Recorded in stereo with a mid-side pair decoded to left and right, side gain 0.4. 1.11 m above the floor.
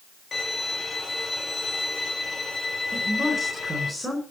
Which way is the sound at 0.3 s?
40° left.